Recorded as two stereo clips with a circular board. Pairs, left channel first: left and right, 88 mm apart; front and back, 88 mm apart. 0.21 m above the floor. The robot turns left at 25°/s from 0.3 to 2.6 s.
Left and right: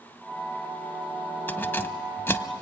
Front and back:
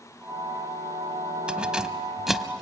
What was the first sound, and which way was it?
Keys jangling, 120° left.